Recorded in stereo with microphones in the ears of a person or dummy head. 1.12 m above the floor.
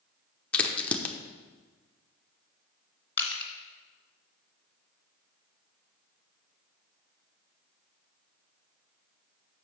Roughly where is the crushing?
Centre.